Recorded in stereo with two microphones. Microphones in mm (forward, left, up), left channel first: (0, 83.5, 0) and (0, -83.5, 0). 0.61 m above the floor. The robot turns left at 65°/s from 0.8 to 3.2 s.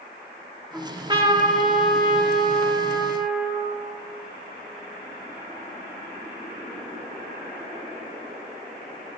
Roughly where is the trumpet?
Ahead.